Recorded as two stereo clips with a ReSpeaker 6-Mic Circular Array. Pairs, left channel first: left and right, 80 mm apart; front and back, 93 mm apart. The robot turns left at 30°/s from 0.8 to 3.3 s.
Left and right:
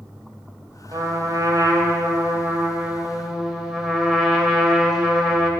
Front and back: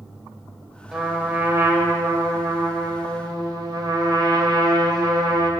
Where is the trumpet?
100° right, 1.9 m; by 5.5 s 175° right, 1.9 m.